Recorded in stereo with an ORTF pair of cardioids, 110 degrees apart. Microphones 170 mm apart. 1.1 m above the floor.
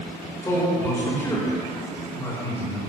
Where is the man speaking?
15° left, 4 m.